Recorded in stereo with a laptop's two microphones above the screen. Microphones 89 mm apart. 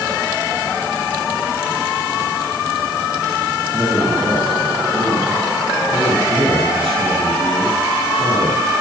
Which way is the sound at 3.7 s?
60° right (ahead or behind).